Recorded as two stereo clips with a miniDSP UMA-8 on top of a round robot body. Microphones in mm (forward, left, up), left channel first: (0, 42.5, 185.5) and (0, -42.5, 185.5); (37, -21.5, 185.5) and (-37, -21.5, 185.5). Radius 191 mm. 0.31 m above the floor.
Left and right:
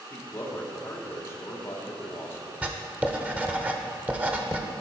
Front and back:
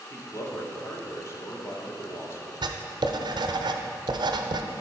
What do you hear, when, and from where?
0.1 s a man speaking: 40° left, 1.9 m
2.6 s writing: 165° right, 0.6 m